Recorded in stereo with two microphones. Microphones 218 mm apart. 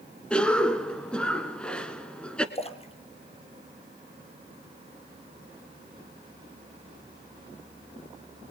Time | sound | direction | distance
0.3 | a cough | 5° left (ahead or behind) | 1.3 m
2.5 | a splash | 25° left (ahead or behind) | 1.9 m